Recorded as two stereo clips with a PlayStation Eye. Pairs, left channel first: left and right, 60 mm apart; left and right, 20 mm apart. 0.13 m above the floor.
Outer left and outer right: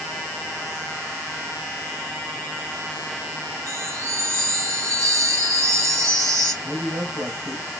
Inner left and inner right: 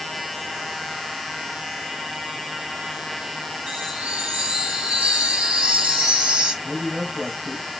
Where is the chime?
70° right (ahead or behind), 3.5 m.